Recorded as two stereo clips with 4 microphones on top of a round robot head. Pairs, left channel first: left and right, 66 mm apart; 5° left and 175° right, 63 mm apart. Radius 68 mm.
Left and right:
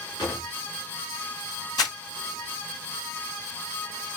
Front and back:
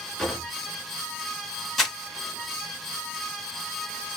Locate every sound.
0.2 s a drawer: 95° left, 2 m
1.8 s crumpling: 90° left, 2.5 m